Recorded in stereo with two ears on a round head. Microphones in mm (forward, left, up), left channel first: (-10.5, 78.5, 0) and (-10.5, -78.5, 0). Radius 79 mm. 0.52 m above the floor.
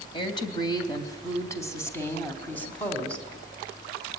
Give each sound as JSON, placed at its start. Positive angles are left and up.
{"t": 0.1, "sound": "a woman speaking", "side_deg": 30, "distance_m": 3.0}